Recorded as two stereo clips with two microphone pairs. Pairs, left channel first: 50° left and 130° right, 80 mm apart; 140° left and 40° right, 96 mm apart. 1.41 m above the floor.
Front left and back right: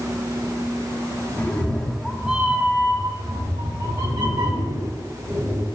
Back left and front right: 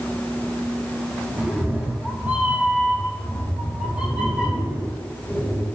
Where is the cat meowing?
15° left, 1.0 m; by 5.7 s 120° right, 2.5 m.